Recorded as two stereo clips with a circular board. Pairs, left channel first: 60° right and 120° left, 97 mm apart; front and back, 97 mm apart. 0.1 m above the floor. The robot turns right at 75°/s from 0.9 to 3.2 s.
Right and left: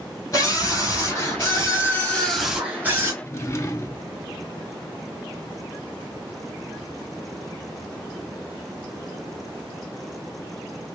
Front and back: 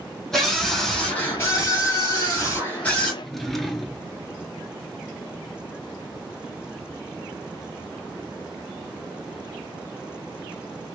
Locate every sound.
0.3 s a scream: 80° right, 1.6 m; by 3.1 s 85° left, 1.6 m
3.2 s a drawer: 85° right, 0.7 m